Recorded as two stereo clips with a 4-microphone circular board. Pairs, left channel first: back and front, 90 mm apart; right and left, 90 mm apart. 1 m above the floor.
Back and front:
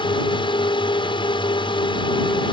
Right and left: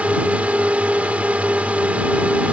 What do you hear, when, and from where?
0.0 s a drone: 165° left